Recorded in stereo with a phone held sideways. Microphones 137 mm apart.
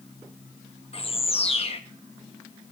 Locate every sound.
0.9 s a bird: 45° left (ahead or behind), 0.9 m